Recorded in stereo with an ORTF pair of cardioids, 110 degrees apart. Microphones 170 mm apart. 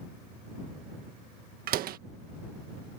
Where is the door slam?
65° right.